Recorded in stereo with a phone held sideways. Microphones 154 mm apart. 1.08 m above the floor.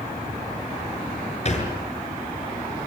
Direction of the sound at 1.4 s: 45° left (ahead or behind).